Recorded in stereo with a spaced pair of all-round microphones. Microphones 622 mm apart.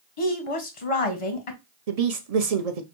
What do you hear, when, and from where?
0.2 s a woman speaking: 55° left (ahead or behind), 1.1 m
1.9 s a woman speaking: 70° right (ahead or behind), 0.9 m